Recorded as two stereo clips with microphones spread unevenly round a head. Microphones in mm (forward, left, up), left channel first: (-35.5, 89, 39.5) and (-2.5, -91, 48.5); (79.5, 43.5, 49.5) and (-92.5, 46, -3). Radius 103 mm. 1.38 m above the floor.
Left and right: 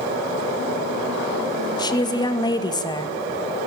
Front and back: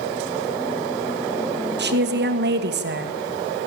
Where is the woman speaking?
170° left, 2 m.